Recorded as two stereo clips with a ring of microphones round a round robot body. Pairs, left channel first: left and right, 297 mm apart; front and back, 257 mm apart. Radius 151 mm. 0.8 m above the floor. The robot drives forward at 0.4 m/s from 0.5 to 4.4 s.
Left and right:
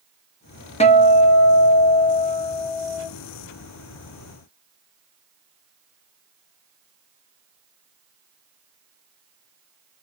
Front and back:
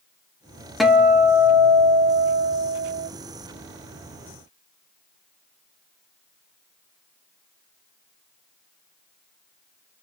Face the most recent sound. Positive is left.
turn(degrees=165)